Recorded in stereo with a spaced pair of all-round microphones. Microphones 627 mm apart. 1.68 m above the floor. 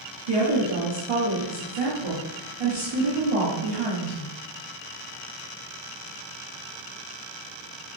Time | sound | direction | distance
0.3 | a woman speaking | 55° right (ahead or behind) | 1.3 m